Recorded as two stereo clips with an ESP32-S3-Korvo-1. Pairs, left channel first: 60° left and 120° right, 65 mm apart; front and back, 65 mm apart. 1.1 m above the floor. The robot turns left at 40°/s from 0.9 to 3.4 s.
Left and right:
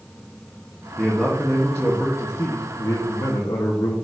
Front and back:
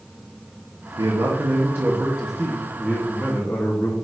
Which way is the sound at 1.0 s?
160° left.